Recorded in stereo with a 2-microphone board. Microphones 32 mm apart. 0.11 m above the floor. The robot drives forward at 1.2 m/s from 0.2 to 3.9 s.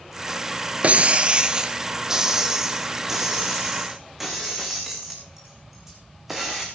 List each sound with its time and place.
0.8 s breaking glass: 45° right (ahead or behind), 0.7 m; by 6.7 s 10° right (ahead or behind), 4 m